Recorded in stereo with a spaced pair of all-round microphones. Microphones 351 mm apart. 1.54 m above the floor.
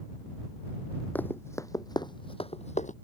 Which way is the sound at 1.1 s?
5° left (ahead or behind).